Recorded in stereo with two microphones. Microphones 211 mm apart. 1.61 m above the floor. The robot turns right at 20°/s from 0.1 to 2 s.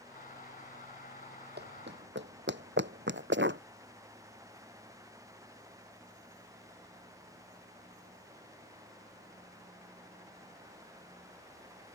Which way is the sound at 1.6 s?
50° right (ahead or behind).